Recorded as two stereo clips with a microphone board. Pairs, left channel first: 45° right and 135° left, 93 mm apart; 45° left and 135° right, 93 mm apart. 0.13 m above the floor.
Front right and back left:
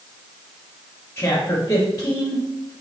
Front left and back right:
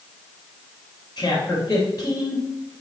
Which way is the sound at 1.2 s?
15° left.